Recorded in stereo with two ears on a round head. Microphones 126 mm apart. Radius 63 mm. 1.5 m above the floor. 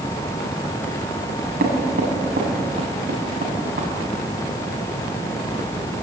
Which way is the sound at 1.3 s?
75° right (ahead or behind).